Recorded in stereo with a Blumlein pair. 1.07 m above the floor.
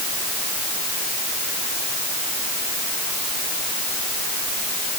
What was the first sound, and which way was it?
Only background noise.